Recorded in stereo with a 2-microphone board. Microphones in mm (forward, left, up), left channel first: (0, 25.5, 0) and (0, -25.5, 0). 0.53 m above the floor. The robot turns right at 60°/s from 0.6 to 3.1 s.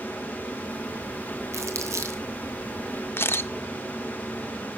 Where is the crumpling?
65° right (ahead or behind), 2.5 m; by 2.2 s 70° right (ahead or behind), 2.5 m.